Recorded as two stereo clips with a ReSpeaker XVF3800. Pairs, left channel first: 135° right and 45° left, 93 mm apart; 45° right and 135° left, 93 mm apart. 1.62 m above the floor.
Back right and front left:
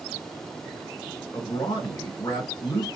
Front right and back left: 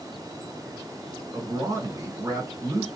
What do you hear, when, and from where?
1.3 s a man speaking: straight behind, 1.4 m